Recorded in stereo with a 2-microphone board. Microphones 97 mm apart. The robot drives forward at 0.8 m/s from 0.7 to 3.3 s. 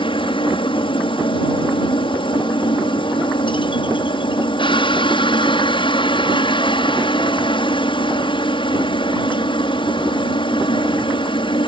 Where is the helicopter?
60° left (ahead or behind).